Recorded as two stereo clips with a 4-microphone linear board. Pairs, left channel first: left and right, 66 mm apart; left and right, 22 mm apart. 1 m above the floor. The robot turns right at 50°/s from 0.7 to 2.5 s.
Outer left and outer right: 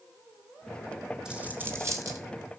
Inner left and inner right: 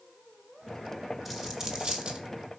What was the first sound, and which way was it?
A dropped coin, 10° right (ahead or behind).